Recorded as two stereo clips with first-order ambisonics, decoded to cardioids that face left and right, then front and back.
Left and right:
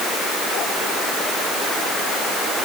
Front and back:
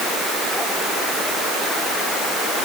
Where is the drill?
No drill in this recording.